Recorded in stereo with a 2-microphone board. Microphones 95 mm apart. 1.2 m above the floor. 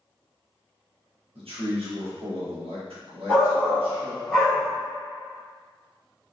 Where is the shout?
20° right (ahead or behind), 2.0 m.